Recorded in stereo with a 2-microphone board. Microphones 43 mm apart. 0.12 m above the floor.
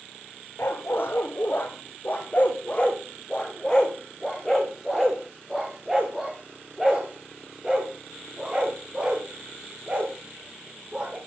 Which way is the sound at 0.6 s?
55° left (ahead or behind).